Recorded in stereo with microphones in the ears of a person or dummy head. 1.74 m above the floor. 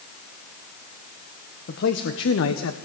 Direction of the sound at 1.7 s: 60° left (ahead or behind).